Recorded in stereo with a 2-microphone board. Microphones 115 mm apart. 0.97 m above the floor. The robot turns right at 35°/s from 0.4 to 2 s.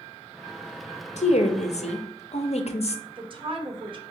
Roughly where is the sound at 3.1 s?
Right.